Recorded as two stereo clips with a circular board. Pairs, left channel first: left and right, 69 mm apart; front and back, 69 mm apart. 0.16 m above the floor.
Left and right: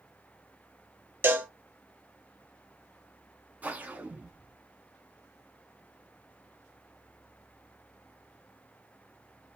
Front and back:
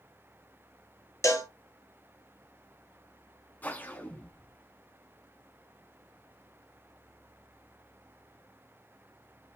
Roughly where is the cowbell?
Ahead right.